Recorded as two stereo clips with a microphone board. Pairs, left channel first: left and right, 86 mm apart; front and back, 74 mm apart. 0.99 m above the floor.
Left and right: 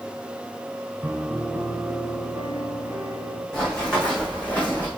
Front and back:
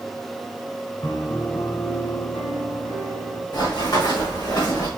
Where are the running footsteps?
5° left, 3.5 m; by 4.9 s 20° left, 3 m.